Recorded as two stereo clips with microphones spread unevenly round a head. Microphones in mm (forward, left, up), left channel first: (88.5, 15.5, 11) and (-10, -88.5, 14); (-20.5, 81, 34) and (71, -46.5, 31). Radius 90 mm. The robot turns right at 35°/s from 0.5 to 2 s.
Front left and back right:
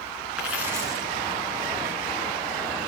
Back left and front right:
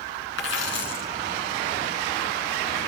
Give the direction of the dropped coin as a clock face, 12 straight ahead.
7 o'clock.